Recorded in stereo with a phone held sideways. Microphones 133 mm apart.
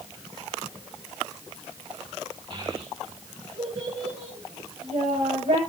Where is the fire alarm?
I don't hear a fire alarm.